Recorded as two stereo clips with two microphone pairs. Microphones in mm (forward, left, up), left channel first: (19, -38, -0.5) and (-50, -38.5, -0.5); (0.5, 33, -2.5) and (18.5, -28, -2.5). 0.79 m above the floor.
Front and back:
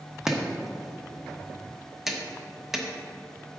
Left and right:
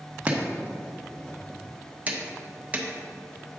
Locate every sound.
0.3 s chopping: 105° right, 0.9 m